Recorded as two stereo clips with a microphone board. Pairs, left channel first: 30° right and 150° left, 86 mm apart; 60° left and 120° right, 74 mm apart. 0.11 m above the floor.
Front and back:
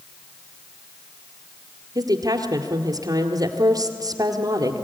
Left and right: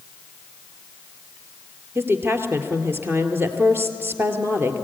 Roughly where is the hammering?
I don't hear hammering.